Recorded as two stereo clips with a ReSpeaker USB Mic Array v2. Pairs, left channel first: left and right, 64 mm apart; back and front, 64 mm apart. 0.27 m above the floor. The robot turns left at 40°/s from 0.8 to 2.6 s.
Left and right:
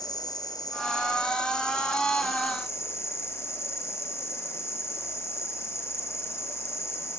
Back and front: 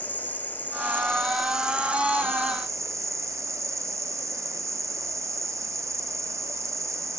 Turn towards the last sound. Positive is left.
turn(degrees=40)